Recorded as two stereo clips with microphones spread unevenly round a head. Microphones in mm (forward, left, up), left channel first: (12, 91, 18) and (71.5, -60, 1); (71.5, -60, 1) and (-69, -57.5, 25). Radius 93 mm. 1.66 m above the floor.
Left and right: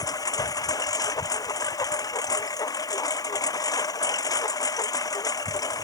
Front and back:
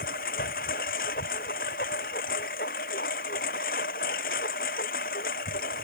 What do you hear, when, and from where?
0.0 s a lawn mower: 45° left